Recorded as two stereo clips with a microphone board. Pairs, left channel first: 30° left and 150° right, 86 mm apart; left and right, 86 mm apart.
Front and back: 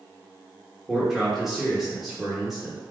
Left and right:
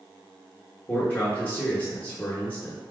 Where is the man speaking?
125° left, 1.0 m.